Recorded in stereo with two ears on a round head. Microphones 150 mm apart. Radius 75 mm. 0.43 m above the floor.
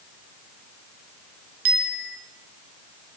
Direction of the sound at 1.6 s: 60° right (ahead or behind).